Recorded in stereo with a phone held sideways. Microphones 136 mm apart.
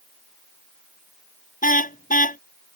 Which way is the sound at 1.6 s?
80° left.